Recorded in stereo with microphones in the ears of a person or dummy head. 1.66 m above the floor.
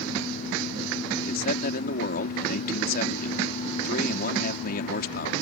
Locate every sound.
1.2 s a man speaking: 55° left (ahead or behind)